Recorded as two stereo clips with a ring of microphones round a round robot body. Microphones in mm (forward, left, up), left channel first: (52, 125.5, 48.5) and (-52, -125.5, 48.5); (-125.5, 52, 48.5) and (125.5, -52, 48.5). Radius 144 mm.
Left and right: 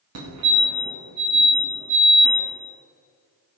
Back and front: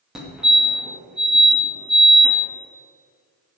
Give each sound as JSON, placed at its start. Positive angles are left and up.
{"t": 0.1, "sound": "a fire alarm", "azimuth_deg": -110, "distance_m": 2.5}